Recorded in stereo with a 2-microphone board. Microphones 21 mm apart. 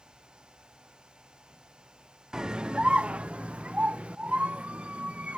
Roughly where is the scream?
Right.